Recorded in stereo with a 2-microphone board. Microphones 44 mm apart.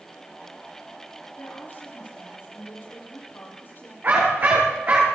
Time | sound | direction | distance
1.4 | a woman speaking | 50° left (ahead or behind) | 8 m
4.0 | a dog barking | 45° right (ahead or behind) | 6.5 m